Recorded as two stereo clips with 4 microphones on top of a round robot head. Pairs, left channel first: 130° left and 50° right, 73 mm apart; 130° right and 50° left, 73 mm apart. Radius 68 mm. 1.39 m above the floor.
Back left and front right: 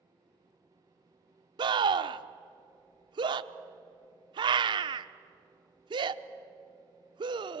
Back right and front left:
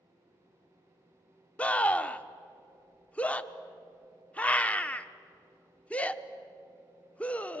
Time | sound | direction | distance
1.6 | a scream | 55° right | 1.0 m